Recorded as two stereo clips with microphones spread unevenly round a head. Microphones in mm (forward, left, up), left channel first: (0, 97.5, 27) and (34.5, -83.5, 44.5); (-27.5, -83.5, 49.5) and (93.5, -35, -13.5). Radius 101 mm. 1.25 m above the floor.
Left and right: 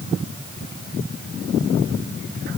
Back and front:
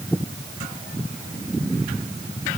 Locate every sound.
Only background noise.